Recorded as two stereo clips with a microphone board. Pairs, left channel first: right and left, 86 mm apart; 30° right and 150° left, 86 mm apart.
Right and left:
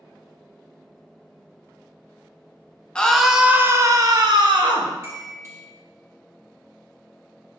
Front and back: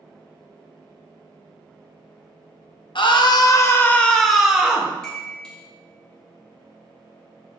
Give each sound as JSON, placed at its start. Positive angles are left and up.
{"t": 3.0, "sound": "a scream", "azimuth_deg": -10, "distance_m": 0.6}
{"t": 5.0, "sound": "a chime", "azimuth_deg": 50, "distance_m": 1.3}